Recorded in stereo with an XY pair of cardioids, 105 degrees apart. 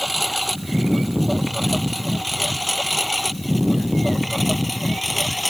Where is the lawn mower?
Straight ahead; by 5.5 s 5° left.